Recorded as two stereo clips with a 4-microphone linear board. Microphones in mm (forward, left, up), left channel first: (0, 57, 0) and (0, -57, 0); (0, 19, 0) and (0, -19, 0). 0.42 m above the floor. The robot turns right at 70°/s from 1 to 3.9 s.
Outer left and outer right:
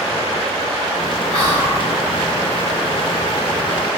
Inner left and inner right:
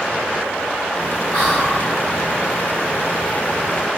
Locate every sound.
1.3 s whispering: 10° left (ahead or behind), 1.1 m; by 1.8 s 25° left (ahead or behind), 1.1 m